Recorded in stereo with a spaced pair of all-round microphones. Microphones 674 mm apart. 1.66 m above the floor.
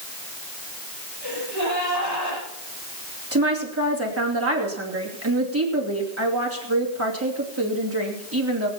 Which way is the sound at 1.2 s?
25° left (ahead or behind).